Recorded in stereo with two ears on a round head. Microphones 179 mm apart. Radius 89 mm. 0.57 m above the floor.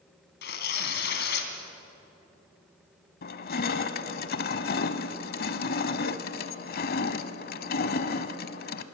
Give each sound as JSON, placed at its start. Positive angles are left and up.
{"t": 0.4, "sound": "tearing paper", "side_deg": 55, "distance_m": 2.5}
{"t": 3.2, "sound": "crushing", "side_deg": 50, "distance_m": 0.9}